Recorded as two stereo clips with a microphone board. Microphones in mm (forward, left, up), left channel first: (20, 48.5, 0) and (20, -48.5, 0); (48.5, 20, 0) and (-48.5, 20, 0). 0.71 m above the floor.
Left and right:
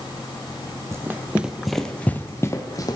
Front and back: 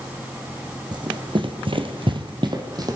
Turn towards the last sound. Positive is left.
turn(degrees=135)